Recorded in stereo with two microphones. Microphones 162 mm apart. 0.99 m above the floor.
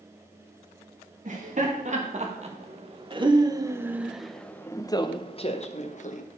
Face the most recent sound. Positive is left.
turn(degrees=55)  # may be behind; listen again after turning